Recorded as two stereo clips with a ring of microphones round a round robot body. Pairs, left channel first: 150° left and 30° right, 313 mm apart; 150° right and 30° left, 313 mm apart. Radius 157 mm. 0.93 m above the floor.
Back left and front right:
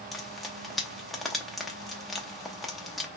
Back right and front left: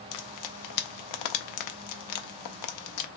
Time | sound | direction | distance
0.1 | frying | 120° right | 0.6 m